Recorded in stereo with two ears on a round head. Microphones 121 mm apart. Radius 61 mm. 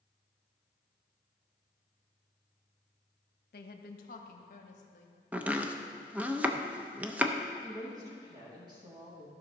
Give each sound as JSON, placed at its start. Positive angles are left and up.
{"t": 3.5, "sound": "a woman speaking", "side_deg": 80, "distance_m": 0.9}
{"t": 5.3, "sound": "chopping", "side_deg": -10, "distance_m": 0.6}
{"t": 7.6, "sound": "a woman speaking", "side_deg": -30, "distance_m": 2.5}